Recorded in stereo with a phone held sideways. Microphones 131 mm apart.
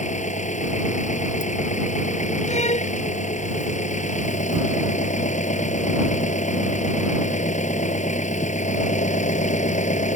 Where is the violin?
55° left (ahead or behind).